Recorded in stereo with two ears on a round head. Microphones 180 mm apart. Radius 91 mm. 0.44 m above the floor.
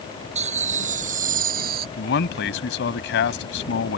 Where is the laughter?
35° right (ahead or behind); by 1.9 s 50° right (ahead or behind).